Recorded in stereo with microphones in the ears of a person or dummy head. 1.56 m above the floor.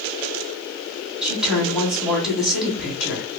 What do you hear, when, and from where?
1.2 s a woman speaking: centre (ahead or behind), 1.7 m